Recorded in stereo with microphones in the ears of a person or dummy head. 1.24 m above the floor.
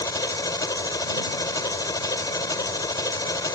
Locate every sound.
0.0 s an engine running: 10° left (ahead or behind)